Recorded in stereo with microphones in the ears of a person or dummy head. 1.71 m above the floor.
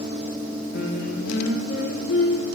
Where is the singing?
70° left (ahead or behind), 3 m.